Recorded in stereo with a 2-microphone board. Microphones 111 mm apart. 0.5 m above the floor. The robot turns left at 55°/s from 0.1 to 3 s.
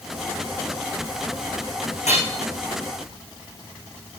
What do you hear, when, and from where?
2.1 s hammering: 90° left, 8 m; by 2.2 s 80° left, 8 m